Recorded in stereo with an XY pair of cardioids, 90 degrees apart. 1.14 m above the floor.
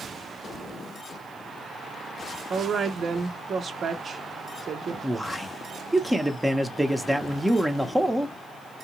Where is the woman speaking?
55° right, 0.6 m.